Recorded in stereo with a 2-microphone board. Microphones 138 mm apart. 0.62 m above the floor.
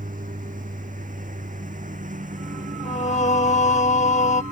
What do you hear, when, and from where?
0.0 s a lawn mower: 75° right (ahead or behind); by 4.5 s 70° right (ahead or behind)
2.9 s singing: 60° left (ahead or behind)